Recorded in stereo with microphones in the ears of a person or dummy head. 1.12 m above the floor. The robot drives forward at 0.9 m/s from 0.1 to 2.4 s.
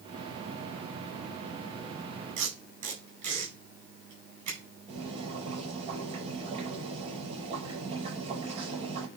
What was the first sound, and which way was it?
Tape being pulled, 35° right (ahead or behind).